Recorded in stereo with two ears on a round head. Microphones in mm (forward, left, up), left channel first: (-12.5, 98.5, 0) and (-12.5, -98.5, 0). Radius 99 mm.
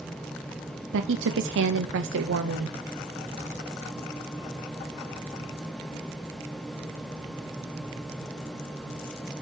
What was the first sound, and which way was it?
A woman speaking, 55° right (ahead or behind).